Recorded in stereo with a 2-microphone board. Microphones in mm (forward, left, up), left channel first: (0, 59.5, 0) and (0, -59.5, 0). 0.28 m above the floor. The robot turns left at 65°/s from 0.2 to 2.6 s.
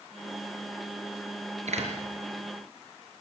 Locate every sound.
1.7 s a door slam: 70° right (ahead or behind), 4 m; by 1.9 s 55° right (ahead or behind), 4 m